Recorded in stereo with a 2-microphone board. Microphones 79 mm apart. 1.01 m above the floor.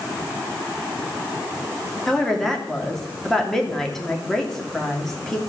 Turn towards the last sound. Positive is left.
turn(degrees=5)  # may be behind; listen again after turning